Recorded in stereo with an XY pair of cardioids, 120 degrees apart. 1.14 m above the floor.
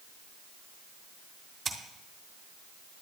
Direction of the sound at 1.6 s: 35° right.